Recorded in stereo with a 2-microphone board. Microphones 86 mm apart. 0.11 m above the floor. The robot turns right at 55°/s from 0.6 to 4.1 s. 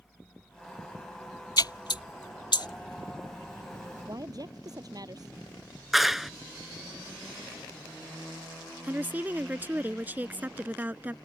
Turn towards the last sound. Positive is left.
turn(degrees=-20)  # may be behind; listen again after turning